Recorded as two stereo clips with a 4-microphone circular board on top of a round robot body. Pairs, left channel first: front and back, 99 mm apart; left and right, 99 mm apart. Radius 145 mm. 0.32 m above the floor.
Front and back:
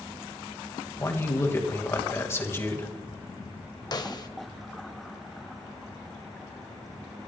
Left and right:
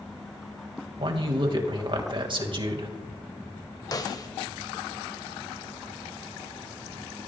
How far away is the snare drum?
About 1.5 m.